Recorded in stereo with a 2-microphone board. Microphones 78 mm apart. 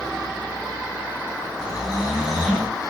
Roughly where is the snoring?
Centre.